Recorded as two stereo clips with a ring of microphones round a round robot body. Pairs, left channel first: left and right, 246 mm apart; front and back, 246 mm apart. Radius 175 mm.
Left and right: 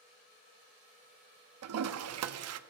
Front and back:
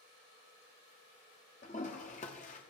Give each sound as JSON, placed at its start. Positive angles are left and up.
{"t": 1.6, "sound": "a toilet flushing", "azimuth_deg": -70, "distance_m": 0.7}